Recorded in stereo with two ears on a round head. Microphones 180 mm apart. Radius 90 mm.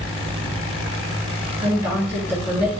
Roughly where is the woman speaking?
Centre.